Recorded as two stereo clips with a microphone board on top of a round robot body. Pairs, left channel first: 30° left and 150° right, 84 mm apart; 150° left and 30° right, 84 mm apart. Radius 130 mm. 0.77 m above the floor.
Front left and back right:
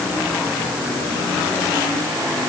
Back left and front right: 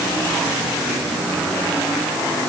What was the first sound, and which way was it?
Only background noise.